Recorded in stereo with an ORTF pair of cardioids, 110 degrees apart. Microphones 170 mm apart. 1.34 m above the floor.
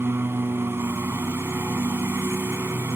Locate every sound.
0.0 s a lawn mower: 15° right